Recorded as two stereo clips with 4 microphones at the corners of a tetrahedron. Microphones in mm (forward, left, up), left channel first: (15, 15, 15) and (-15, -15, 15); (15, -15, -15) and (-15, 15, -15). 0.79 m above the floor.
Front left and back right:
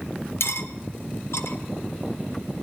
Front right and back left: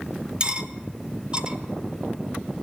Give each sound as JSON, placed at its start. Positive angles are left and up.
{"t": 0.4, "sound": "cutlery clinking", "azimuth_deg": 65, "distance_m": 1.3}